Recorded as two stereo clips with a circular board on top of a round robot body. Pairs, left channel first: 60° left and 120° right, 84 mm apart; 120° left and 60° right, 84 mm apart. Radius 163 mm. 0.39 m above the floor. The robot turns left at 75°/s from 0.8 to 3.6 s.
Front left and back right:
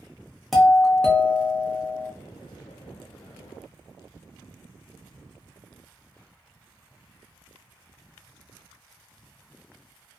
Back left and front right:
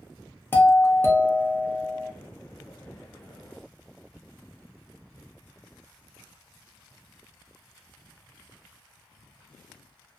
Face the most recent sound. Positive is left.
turn(degrees=-60)